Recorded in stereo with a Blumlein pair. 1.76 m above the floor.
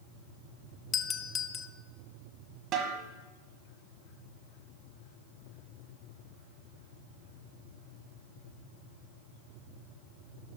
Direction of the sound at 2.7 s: 35° right.